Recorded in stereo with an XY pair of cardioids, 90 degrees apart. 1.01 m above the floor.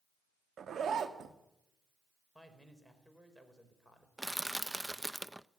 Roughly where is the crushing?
Ahead.